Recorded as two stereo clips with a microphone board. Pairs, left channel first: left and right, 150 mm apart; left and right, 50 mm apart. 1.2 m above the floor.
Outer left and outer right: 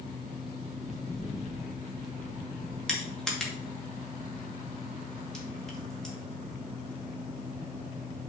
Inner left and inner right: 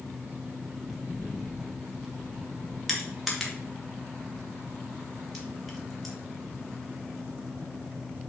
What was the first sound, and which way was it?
Footsteps, centre (ahead or behind).